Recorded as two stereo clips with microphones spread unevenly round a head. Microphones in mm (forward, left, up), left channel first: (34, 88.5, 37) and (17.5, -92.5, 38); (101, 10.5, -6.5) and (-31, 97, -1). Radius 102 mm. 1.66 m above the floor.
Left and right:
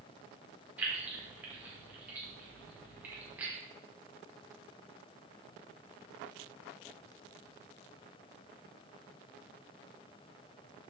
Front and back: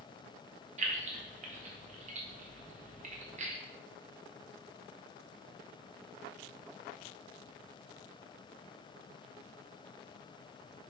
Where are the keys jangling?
175° right, 1.0 m.